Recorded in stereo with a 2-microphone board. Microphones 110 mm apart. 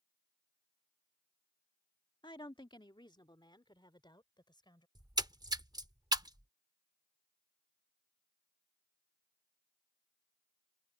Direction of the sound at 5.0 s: 40° right (ahead or behind).